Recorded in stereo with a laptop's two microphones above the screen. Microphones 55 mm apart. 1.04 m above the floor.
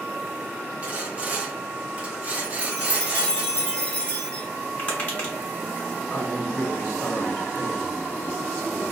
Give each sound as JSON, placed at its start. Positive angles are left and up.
{"t": 0.8, "sound": "sawing", "side_deg": -30, "distance_m": 0.7}
{"t": 2.4, "sound": "a chime", "side_deg": 20, "distance_m": 0.8}
{"t": 4.8, "sound": "tapping", "side_deg": 30, "distance_m": 0.8}
{"t": 6.1, "sound": "a woman speaking", "side_deg": 40, "distance_m": 0.8}